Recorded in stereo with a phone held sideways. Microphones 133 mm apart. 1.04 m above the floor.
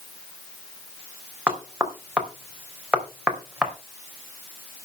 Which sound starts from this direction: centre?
Knocking, at 1.5 s.